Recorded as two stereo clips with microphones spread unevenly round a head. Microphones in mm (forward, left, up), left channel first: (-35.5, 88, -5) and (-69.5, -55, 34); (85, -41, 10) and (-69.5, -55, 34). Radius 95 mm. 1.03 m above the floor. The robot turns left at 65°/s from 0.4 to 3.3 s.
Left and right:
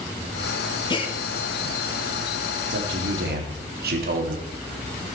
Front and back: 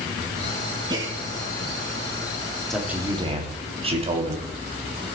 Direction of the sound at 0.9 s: 120° left.